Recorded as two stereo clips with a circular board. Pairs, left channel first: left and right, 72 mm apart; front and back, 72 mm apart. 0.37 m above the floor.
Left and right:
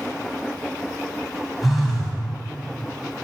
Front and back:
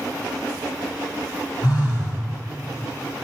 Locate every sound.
1.6 s a phone buzzing: straight ahead, 2.5 m